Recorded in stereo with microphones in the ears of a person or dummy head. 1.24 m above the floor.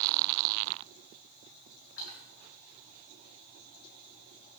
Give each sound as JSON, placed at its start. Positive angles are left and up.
{"t": 2.0, "sound": "a splash", "side_deg": 75, "distance_m": 6.5}